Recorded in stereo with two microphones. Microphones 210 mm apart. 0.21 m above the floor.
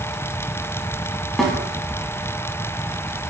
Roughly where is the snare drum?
Centre.